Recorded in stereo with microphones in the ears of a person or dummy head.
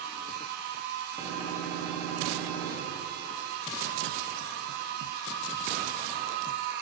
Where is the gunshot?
10° right (ahead or behind), 2.5 m.